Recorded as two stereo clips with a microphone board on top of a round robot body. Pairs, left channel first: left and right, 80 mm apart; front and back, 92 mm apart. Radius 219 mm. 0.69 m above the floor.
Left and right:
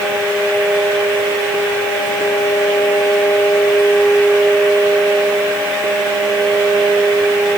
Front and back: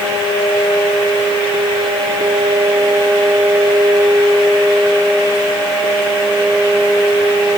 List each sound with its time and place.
Only background noise.